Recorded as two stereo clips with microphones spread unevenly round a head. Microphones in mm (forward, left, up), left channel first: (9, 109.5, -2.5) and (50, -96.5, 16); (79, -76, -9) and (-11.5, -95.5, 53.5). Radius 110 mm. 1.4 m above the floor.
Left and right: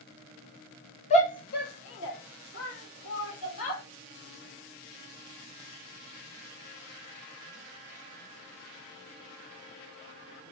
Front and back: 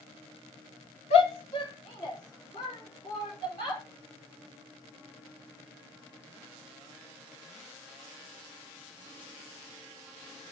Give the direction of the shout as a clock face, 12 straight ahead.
11 o'clock.